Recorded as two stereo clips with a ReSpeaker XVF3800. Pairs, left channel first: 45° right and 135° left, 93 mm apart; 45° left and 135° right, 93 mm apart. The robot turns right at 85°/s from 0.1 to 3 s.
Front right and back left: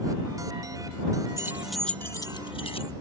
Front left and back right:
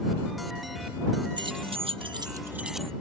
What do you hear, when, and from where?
1.4 s keys jangling: 170° right; by 2.9 s 35° right